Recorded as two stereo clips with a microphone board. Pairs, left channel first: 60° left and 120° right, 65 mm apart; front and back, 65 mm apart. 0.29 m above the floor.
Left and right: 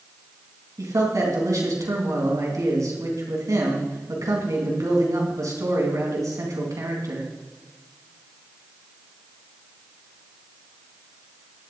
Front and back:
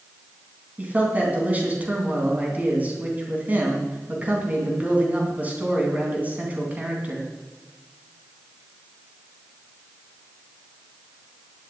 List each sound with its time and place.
0.8 s a man speaking: 120° right, 3.5 m